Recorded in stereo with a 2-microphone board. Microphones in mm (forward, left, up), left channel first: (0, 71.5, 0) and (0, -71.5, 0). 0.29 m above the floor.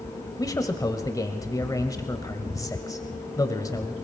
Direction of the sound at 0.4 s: 25° left (ahead or behind).